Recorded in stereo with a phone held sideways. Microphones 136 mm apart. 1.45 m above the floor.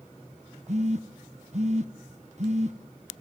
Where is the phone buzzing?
55° right (ahead or behind), 1.1 m.